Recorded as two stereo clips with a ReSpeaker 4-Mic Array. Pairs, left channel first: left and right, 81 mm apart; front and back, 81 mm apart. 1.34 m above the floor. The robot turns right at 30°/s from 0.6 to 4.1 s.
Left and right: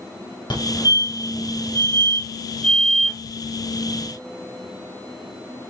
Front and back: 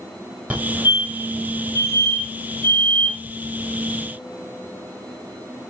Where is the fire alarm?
110° left, 5 m; by 3.2 s 175° right, 5 m.